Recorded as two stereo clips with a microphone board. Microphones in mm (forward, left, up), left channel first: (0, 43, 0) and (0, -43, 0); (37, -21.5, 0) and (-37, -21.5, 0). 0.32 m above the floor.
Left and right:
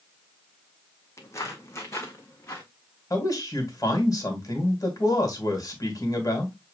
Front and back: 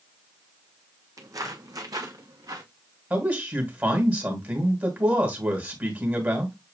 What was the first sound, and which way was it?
Footsteps, 145° left.